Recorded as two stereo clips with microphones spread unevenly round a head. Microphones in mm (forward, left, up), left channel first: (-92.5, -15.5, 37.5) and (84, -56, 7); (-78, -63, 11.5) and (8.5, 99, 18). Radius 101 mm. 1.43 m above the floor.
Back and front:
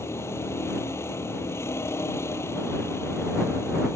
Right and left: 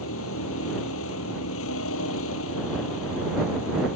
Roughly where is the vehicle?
Behind right.